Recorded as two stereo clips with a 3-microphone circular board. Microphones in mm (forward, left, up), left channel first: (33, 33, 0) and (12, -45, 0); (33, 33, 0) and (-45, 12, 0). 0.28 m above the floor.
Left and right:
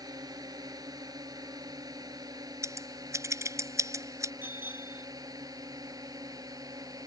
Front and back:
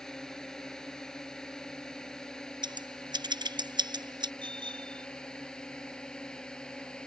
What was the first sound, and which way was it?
A drone, 70° right.